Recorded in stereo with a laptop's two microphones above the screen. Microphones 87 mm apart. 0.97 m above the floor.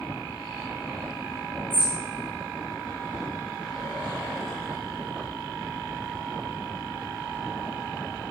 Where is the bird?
85° left, 5.5 m.